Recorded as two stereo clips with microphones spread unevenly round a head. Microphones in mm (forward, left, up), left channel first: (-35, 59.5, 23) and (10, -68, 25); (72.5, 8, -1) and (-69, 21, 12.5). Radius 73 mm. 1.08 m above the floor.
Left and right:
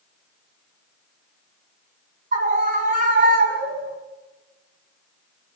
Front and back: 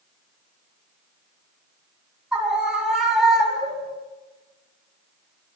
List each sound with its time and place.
2.3 s a scream: 100° right, 7.5 m; by 4.0 s 95° right, 6 m